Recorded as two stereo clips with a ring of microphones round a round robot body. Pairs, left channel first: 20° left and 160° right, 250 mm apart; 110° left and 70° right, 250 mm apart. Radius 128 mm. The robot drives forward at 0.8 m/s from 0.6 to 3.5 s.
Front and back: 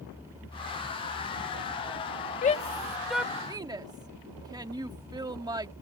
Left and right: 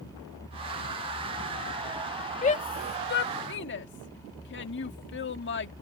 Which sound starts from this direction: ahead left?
A shout, at 2.4 s.